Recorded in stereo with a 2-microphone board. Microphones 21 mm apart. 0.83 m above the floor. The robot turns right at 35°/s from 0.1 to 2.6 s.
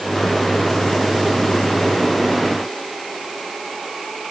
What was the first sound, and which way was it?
Only background noise.